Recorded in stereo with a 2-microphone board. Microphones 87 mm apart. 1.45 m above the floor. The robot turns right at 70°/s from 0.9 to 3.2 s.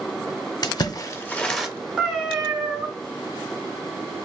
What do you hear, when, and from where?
0.6 s a splash: 45° left (ahead or behind), 0.5 m; by 1.7 s 10° right (ahead or behind), 0.5 m
2.0 s a cat meowing: 10° right (ahead or behind), 1.1 m; by 2.9 s 10° left (ahead or behind), 1.1 m